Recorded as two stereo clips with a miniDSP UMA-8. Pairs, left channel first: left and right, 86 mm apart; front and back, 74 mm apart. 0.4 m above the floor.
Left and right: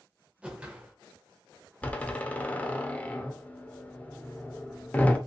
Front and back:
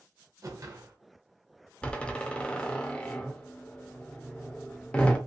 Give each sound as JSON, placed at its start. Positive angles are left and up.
{"t": 0.4, "sound": "a whoosh", "azimuth_deg": -160, "distance_m": 0.7}
{"t": 1.8, "sound": "a door slam", "azimuth_deg": 45, "distance_m": 0.5}